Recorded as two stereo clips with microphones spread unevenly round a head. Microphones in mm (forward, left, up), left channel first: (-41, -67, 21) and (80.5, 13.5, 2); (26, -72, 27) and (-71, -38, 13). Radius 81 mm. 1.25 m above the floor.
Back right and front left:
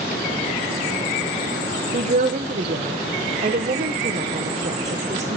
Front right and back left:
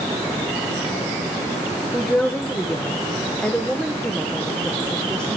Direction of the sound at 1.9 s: 65° left.